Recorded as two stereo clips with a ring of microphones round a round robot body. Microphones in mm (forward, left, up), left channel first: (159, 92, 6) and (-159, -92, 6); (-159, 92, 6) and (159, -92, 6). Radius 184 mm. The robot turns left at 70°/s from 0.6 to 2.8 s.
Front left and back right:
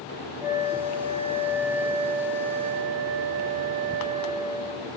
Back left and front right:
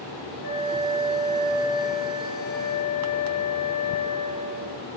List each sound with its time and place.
0.4 s a flute: 25° left, 8 m; by 4.9 s 130° right, 8 m